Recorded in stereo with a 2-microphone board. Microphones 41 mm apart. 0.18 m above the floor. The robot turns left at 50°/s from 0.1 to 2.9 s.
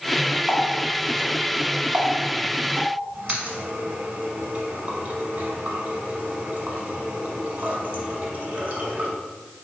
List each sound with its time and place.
0.5 s a running tap: 5° left (ahead or behind), 1.1 m; by 9.1 s 35° right (ahead or behind), 1.1 m